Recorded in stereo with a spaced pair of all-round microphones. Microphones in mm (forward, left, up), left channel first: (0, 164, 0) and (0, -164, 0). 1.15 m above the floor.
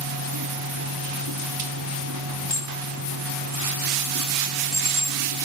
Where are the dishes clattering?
55° left (ahead or behind).